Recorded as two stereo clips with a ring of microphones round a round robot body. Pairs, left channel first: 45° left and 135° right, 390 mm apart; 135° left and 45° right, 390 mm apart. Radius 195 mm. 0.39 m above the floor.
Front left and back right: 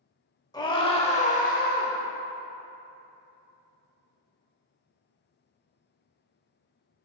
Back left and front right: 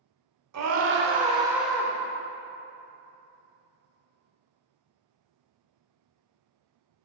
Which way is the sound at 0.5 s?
30° right.